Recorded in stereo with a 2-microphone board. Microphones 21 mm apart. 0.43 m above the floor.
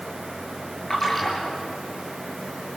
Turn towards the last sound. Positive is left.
turn(degrees=10)  # may be behind; listen again after turning